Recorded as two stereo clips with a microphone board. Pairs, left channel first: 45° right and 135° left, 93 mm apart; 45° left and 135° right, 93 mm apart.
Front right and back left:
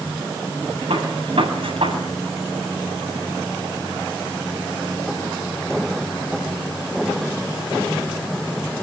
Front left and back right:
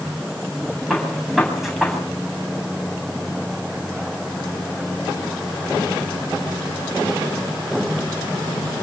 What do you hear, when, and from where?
0.9 s a gunshot: 140° left, 8.5 m